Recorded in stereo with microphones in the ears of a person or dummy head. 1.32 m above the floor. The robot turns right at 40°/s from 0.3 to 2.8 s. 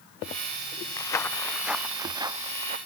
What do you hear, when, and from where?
1.0 s footsteps: 20° left (ahead or behind); by 2.8 s 40° right (ahead or behind)